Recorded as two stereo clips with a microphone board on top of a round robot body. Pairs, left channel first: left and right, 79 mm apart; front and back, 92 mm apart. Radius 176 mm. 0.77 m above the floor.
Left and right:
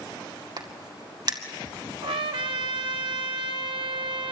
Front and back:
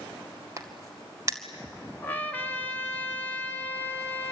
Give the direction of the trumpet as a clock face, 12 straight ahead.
2 o'clock.